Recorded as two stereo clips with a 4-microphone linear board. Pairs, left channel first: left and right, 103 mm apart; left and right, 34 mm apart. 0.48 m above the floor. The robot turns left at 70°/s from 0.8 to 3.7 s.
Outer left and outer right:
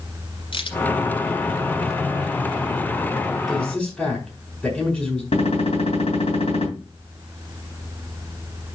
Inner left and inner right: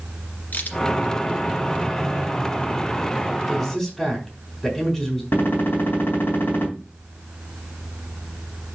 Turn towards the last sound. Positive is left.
turn(degrees=75)  # may be behind; listen again after turning